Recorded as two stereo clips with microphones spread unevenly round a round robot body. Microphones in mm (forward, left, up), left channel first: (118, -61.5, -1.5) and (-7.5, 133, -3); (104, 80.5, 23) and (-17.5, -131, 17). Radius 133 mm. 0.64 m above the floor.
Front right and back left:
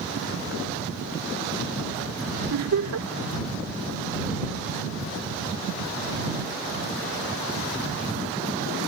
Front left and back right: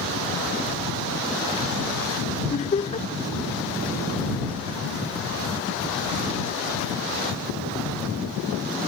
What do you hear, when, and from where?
2.5 s laughter: 125° left